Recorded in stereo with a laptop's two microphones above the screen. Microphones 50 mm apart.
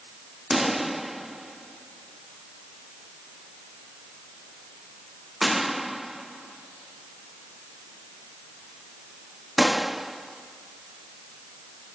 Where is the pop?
5° right (ahead or behind).